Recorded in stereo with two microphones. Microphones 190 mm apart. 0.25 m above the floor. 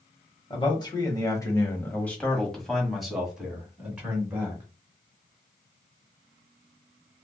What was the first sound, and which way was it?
A man speaking, 25° left (ahead or behind).